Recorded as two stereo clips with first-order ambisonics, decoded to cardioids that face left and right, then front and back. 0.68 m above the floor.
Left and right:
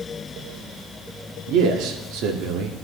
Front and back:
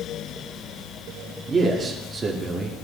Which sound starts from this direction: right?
A man speaking, at 1.5 s.